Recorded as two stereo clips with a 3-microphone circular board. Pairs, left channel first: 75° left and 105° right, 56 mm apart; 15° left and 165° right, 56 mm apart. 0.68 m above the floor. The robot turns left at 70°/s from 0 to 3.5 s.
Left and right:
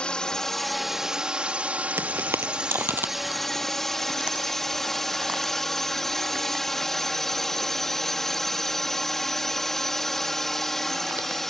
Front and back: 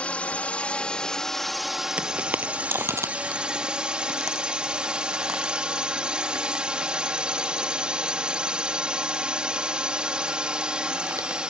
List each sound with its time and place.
0.0 s a drone: 35° left; by 11.5 s 150° left
2.0 s footsteps: 105° right; by 11.4 s 160° right